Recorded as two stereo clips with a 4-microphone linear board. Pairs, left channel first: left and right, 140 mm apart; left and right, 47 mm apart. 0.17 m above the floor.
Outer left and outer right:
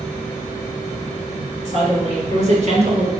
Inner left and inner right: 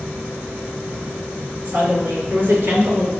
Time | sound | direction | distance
1.6 | a woman speaking | 50° right (ahead or behind) | 2.5 m